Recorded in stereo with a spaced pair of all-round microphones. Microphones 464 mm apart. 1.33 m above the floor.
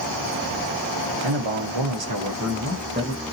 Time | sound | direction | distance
1.2 | a man speaking | 80° right | 1.0 m